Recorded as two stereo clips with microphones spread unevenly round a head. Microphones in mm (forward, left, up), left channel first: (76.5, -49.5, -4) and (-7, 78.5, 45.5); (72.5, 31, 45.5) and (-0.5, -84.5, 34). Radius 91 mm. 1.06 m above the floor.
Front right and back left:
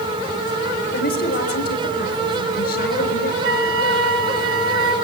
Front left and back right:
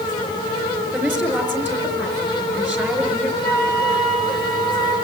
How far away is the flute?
About 2 m.